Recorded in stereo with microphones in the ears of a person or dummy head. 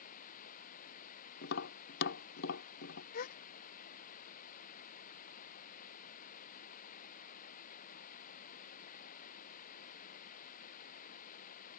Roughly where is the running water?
Left.